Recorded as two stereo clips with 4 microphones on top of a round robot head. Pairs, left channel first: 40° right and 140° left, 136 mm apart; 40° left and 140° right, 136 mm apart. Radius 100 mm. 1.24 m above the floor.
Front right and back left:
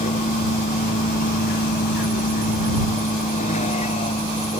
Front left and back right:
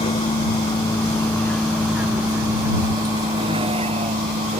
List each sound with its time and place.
0.0 s a vehicle: 10° right; by 4.6 s 100° right